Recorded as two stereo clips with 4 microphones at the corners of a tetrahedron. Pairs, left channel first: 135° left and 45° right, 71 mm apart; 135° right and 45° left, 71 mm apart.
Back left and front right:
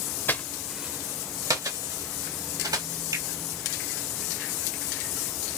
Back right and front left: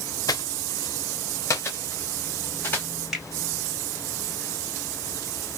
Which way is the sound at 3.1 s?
40° right.